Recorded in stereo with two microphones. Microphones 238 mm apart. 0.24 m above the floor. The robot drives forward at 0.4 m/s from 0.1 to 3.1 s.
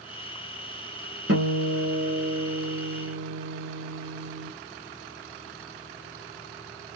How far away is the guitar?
About 3 m.